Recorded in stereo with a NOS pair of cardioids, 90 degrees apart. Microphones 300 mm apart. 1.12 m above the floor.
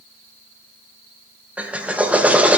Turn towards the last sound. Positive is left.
turn(degrees=-5)